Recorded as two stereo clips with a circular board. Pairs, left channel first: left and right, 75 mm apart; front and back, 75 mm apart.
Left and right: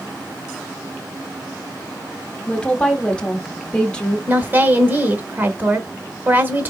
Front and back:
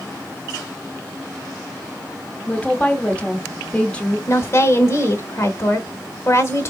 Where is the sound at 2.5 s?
40° left, 1.0 m.